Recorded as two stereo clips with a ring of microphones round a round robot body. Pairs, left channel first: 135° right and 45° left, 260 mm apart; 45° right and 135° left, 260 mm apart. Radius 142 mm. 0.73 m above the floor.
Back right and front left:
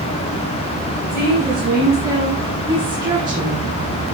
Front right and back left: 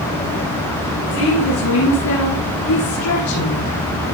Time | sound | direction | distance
1.1 | a woman speaking | 35° right | 7.5 m